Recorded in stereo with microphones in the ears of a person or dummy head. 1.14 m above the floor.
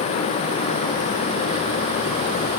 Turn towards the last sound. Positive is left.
No sound to turn to.